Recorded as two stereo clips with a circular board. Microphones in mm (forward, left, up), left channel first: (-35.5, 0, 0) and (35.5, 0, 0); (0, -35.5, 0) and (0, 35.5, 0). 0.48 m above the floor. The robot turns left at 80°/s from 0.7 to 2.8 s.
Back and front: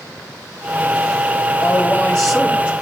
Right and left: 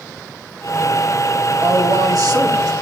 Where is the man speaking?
145° left, 3 m; by 2.7 s 55° left, 3 m.